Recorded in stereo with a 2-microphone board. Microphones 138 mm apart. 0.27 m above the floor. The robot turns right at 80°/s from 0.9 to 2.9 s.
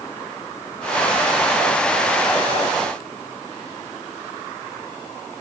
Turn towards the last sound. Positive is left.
No sound to turn to.